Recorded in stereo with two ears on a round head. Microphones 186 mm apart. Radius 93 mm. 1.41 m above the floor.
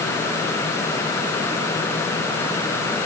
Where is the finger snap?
I don't hear a finger snap.